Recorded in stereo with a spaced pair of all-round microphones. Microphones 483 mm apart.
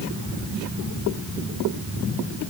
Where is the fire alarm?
No fire alarm in this recording.